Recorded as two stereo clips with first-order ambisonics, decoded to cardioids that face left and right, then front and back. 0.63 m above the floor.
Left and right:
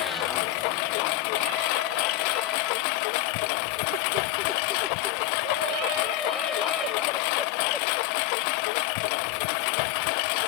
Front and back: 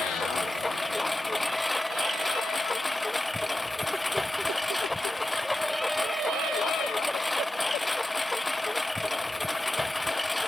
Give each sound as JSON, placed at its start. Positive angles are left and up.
{"t": 0.0, "sound": "a lawn mower", "azimuth_deg": 85}